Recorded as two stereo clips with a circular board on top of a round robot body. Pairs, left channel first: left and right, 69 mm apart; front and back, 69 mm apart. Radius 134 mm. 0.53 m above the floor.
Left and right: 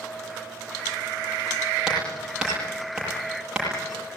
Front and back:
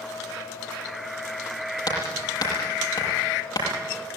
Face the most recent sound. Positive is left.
turn(degrees=-10)